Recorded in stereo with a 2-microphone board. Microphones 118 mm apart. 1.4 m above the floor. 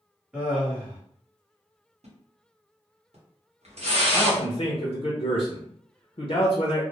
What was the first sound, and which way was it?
Laughter, 10° right (ahead or behind).